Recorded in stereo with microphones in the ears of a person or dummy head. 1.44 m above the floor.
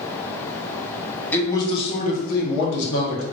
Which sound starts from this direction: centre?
A man speaking, at 1.3 s.